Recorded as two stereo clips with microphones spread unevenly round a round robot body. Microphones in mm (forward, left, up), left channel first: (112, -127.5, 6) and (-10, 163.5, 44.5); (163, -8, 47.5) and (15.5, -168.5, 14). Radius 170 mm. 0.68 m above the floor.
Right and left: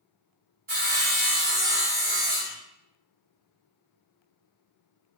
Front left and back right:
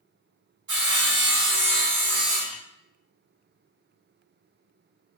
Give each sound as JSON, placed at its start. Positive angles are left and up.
{"t": 0.7, "sound": "sawing", "azimuth_deg": 180, "distance_m": 0.7}